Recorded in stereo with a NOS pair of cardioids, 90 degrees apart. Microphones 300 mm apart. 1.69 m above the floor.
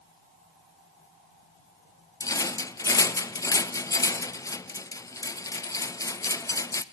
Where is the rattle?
10° left, 0.6 m.